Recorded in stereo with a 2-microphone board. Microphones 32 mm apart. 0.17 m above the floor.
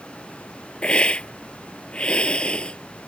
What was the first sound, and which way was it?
A hiss, 40° left (ahead or behind).